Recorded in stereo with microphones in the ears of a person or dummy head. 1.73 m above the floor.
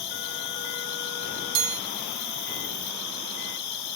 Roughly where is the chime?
Right.